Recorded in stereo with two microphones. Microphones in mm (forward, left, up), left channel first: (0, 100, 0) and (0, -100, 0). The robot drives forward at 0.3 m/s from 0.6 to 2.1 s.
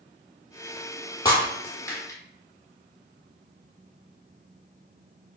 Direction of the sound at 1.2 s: 20° left (ahead or behind).